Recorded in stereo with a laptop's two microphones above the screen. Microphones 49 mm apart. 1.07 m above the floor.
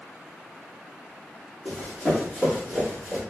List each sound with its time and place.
1.6 s running footsteps: centre (ahead or behind), 1.5 m; by 3.2 s 10° right (ahead or behind), 1.0 m